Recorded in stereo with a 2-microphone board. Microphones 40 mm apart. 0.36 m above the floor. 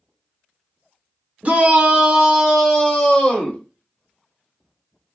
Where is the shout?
40° right (ahead or behind), 1.0 m; by 3.6 s 20° left (ahead or behind), 1.4 m.